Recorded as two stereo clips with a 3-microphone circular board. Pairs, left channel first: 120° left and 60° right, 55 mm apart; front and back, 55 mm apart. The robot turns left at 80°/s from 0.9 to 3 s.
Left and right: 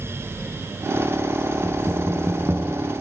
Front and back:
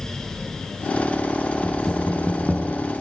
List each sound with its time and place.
1.6 s knocking: 30° right, 6 m; by 2.8 s 120° right, 6 m